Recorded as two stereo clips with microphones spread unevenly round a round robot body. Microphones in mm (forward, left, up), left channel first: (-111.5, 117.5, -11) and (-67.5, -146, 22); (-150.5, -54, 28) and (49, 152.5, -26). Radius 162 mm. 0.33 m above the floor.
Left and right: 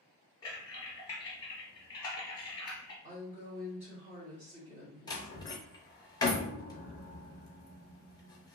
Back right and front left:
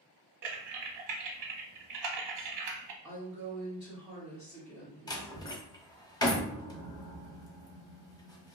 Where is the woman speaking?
20° right, 1.4 m.